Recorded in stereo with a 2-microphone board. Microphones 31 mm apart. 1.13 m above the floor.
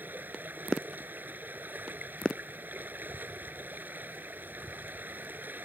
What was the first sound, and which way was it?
Running water, 75° right (ahead or behind).